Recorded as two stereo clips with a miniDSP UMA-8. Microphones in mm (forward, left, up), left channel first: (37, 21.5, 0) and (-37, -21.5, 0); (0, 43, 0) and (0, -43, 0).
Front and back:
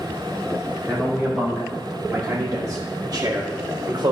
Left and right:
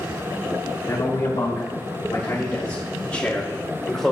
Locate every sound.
0.8 s a man speaking: 120° left, 2 m; by 4.1 s 175° left, 1.7 m